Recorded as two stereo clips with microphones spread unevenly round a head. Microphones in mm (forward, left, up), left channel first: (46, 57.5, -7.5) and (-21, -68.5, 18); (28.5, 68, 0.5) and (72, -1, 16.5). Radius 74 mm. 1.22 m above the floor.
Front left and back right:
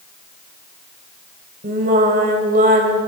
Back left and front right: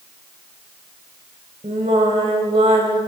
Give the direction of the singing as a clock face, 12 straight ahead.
3 o'clock.